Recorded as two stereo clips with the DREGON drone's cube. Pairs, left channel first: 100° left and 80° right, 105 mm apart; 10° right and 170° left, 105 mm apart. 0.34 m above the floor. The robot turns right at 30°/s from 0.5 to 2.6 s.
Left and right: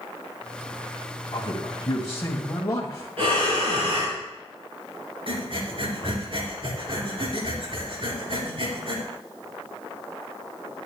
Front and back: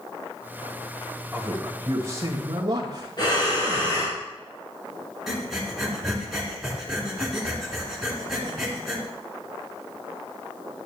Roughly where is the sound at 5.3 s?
Right.